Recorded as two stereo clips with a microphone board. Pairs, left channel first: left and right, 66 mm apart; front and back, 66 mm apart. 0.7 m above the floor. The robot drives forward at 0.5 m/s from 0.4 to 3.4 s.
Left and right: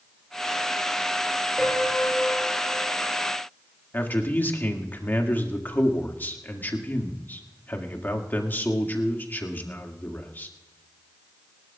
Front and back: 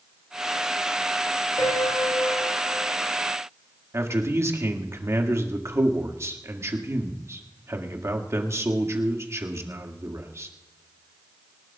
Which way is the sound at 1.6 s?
10° left.